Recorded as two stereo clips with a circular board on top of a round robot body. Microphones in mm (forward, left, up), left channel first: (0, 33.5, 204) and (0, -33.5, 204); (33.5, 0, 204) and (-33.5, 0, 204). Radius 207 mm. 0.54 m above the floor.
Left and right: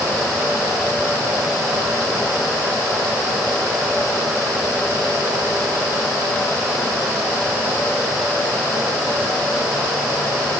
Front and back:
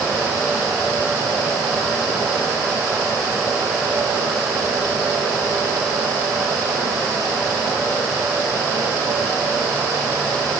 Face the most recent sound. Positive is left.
No sound to turn to.